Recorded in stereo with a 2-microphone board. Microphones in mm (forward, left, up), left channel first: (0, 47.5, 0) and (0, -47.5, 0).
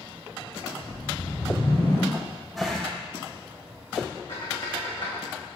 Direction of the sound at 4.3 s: 55° left (ahead or behind).